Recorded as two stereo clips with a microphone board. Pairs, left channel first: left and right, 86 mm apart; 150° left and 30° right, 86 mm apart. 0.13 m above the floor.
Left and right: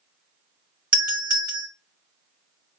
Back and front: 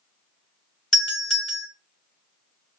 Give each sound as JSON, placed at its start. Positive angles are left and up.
{"t": 0.9, "sound": "a doorbell", "azimuth_deg": -135, "distance_m": 2.0}